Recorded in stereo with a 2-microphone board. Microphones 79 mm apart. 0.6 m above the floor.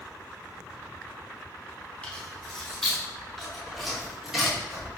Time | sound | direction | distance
2.0 | keys jangling | 15° left (ahead or behind) | 4 m